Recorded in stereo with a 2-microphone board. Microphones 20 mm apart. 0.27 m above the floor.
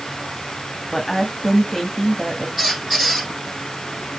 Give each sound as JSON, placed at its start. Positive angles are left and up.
{"t": 0.9, "sound": "a woman speaking", "side_deg": 10, "distance_m": 2.0}
{"t": 2.6, "sound": "a squeak", "side_deg": -10, "distance_m": 4.0}